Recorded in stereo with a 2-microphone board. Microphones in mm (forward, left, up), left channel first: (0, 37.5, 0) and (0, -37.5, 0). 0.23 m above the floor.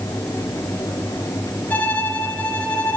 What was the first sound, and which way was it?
A violin, 20° left (ahead or behind).